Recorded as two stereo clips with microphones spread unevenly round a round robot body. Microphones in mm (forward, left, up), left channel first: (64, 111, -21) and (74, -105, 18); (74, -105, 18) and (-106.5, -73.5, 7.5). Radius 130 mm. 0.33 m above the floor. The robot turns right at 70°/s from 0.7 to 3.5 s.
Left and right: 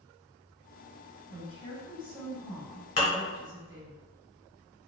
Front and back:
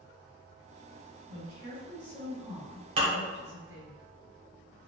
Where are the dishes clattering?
130° left, 0.8 m; by 3.2 s 150° left, 0.8 m.